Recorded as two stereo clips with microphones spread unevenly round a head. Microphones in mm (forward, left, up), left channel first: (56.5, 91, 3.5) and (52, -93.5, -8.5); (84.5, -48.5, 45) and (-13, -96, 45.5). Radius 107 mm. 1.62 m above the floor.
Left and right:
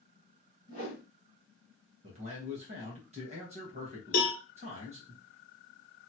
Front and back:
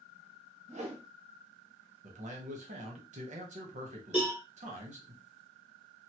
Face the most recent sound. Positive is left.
turn(degrees=125)